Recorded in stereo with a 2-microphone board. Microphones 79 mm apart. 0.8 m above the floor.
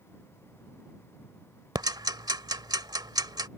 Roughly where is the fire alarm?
No fire alarm in this recording.